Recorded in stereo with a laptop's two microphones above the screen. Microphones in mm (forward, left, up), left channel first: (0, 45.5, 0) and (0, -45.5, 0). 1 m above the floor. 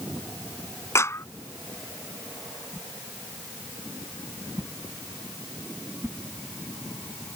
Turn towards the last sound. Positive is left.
turn(degrees=-30)  # may be behind; listen again after turning